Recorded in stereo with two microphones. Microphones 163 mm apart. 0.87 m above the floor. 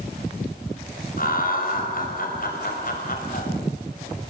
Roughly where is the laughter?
Left.